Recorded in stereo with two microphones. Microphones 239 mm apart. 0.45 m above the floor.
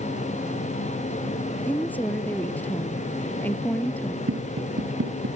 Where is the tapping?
70° right (ahead or behind).